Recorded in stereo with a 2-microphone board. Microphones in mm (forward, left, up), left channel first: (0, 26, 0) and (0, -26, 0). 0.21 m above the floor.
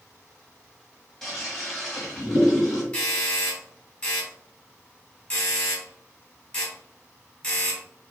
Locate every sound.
1.2 s a toilet flushing: 5° left (ahead or behind), 1.1 m
2.9 s a doorbell: 20° left (ahead or behind), 1.7 m